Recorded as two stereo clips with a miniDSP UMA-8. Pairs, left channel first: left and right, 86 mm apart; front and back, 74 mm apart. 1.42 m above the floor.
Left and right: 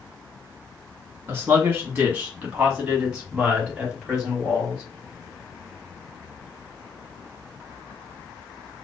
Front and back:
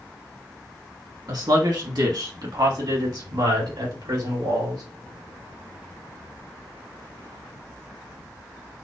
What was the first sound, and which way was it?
A man speaking, 155° right.